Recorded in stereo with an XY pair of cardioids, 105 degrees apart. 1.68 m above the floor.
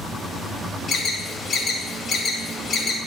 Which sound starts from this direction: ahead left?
An alarm, at 0.9 s.